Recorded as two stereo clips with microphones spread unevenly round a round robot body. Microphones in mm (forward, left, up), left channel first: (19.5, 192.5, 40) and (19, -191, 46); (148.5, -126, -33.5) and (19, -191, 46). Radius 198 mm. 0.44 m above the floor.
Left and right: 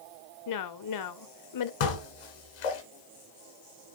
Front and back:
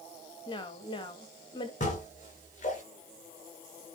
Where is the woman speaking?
60° left, 1.4 m.